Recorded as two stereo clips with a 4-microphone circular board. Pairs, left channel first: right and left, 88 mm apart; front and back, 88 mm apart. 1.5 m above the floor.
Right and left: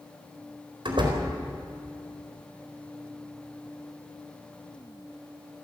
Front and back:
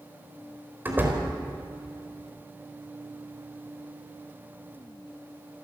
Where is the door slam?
110° left, 4 m.